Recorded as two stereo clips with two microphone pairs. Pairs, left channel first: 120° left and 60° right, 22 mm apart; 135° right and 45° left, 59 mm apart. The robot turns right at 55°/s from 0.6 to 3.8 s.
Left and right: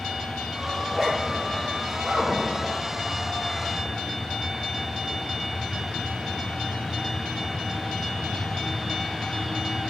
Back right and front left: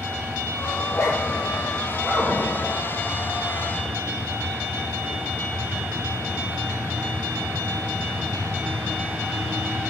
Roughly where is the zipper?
Behind.